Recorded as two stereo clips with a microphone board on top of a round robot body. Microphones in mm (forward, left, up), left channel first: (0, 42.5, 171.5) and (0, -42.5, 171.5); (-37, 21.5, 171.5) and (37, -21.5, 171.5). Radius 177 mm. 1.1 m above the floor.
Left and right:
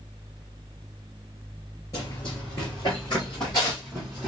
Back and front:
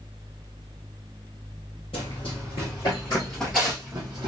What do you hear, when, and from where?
1.9 s running footsteps: 130° left, 1.7 m; by 4.3 s straight ahead, 1.3 m